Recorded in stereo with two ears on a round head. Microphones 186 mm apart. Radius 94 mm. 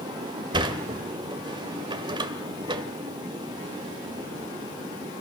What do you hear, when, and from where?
0.5 s a sliding door: 25° right (ahead or behind), 1.8 m